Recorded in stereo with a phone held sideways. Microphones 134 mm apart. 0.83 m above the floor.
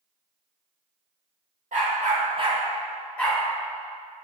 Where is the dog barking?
75° right (ahead or behind), 1.0 m; by 3.4 s 15° left (ahead or behind), 1.3 m.